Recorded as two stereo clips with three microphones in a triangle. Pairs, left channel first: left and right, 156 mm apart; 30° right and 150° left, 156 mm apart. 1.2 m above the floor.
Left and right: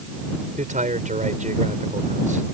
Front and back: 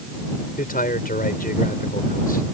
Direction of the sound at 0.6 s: 55° right.